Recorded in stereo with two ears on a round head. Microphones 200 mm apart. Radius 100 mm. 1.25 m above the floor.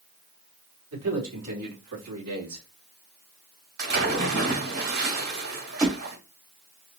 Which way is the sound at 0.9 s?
70° right (ahead or behind).